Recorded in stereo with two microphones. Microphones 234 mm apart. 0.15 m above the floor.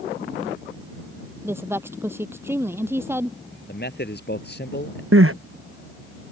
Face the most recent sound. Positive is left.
turn(degrees=-65)  # may be behind; listen again after turning